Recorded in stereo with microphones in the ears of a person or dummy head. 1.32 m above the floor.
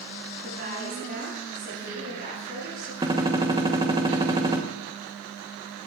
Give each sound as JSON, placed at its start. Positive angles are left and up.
{"t": 0.4, "sound": "a woman speaking", "side_deg": -50, "distance_m": 7.5}
{"t": 3.0, "sound": "a gunshot", "side_deg": -20, "distance_m": 1.2}